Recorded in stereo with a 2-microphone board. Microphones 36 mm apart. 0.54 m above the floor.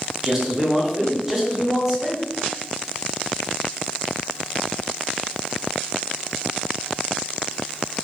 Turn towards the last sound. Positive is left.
turn(degrees=-5)  # may be behind; listen again after turning